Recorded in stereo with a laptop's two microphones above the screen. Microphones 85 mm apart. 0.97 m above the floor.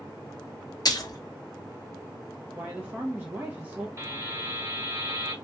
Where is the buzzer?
35° right (ahead or behind), 2 m.